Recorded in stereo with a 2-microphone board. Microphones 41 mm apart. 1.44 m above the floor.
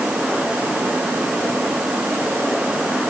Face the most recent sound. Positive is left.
No sound to turn to.